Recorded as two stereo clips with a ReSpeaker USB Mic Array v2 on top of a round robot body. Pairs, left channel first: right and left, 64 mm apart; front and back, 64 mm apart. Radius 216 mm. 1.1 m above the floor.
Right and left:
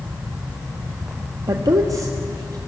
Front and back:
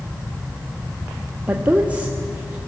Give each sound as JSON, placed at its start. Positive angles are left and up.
{"t": 1.5, "sound": "a woman speaking", "azimuth_deg": 110, "distance_m": 1.4}